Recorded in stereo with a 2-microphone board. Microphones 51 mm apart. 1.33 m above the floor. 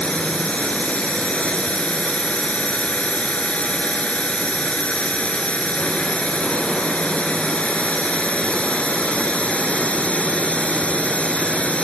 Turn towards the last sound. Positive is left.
turn(degrees=20)  # may be behind; listen again after turning